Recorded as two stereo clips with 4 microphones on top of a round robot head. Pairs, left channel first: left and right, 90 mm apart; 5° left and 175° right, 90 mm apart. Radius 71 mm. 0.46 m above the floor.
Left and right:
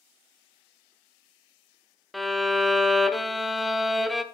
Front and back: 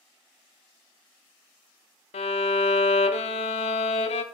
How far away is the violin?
About 0.5 m.